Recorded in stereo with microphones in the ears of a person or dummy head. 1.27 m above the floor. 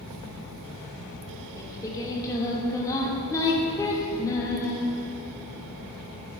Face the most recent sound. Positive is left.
turn(degrees=20)  # may be behind; listen again after turning